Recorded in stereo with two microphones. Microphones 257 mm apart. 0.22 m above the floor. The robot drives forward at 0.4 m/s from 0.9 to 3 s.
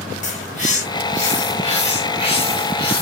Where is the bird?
30° left (ahead or behind), 1.6 m; by 3.0 s 20° left (ahead or behind), 2 m.